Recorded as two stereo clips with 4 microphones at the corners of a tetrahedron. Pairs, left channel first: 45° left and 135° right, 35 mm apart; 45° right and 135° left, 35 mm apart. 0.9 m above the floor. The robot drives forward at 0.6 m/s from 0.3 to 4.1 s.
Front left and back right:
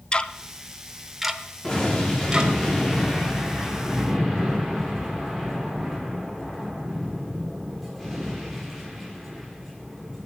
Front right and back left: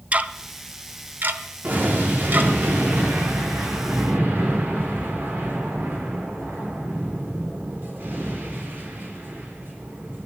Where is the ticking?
100° left, 0.6 m; by 2.5 s 160° left, 1.5 m.